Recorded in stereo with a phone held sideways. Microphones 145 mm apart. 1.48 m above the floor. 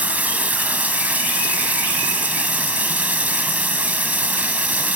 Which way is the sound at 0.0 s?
10° right (ahead or behind).